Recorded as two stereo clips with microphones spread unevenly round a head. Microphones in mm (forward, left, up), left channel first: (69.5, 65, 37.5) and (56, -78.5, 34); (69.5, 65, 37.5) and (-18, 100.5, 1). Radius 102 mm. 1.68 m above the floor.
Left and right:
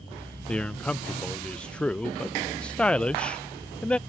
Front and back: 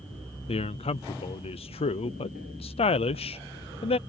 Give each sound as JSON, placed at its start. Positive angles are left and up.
{"t": 0.5, "sound": "a man speaking", "azimuth_deg": 0}